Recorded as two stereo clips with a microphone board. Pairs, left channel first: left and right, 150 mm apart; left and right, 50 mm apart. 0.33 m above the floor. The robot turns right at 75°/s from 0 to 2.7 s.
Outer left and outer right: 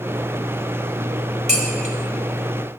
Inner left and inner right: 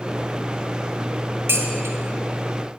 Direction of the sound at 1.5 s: 55° right (ahead or behind).